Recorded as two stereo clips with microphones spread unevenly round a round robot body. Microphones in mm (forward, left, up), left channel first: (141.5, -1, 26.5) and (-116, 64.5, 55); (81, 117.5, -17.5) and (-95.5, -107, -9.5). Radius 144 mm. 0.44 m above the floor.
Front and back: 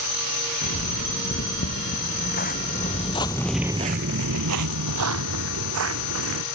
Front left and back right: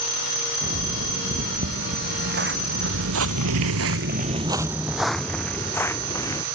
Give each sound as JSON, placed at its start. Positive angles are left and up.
{"t": 0.6, "sound": "footsteps", "azimuth_deg": -65}